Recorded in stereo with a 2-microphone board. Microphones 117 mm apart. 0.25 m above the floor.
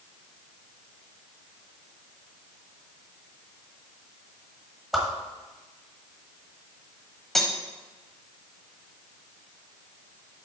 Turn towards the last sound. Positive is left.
turn(degrees=0)  # may be behind; listen again after turning